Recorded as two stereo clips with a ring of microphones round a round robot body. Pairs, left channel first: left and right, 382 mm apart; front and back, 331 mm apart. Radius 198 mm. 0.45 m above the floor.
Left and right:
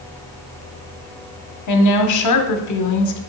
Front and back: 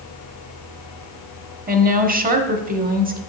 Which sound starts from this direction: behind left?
A woman speaking, at 1.7 s.